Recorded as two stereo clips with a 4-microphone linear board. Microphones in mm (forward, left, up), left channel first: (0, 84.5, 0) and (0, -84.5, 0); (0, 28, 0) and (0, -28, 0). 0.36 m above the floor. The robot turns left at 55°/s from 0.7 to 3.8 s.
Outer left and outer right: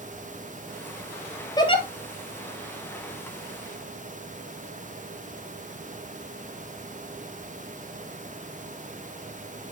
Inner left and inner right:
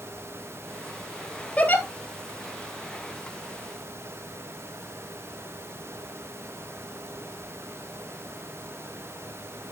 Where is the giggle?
25° left (ahead or behind), 1.5 m; by 1.8 s 40° left (ahead or behind), 1.5 m.